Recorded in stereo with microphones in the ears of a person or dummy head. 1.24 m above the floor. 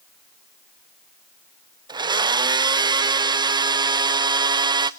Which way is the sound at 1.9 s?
20° right (ahead or behind).